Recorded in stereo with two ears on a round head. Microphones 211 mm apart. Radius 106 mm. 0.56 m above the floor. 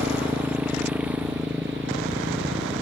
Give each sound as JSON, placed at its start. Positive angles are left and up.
{"t": 0.0, "sound": "a motorcycle", "side_deg": -5}